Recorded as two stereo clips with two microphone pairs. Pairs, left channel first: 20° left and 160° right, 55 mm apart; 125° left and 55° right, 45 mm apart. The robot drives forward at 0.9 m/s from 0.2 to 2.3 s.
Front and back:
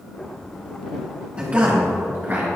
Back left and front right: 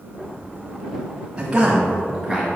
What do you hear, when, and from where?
1.4 s a man speaking: 110° right, 1.5 m; by 2.5 s 145° right, 1.8 m